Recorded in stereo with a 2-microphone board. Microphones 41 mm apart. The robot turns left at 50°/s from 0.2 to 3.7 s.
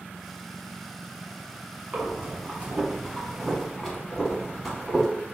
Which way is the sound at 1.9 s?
40° right (ahead or behind).